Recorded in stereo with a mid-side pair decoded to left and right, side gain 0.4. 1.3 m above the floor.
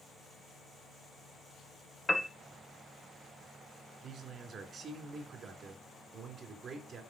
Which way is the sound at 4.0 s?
60° right.